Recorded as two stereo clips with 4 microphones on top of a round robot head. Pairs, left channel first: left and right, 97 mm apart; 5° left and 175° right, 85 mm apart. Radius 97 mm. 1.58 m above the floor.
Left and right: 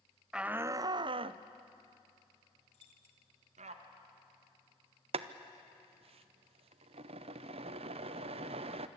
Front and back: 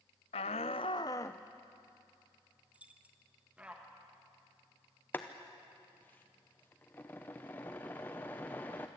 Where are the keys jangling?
110° left, 1.5 m.